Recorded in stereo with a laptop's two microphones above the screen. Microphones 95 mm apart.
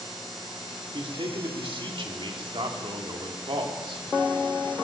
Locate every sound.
0.9 s a man speaking: 65° right (ahead or behind), 2.5 m